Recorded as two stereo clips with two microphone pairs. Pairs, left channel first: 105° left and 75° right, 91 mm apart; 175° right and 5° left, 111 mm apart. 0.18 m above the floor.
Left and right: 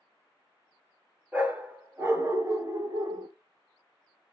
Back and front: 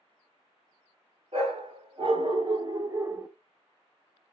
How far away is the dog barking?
About 1.5 m.